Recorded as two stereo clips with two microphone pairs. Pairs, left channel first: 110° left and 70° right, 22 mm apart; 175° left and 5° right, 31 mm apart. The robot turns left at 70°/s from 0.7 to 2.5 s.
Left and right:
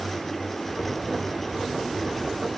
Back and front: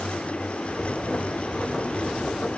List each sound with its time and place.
Only background noise.